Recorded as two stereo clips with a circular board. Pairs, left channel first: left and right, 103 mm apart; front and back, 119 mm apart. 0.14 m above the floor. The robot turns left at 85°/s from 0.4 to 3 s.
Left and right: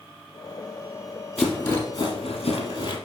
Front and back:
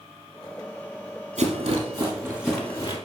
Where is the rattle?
175° right, 1.8 m; by 3.0 s 50° left, 1.8 m.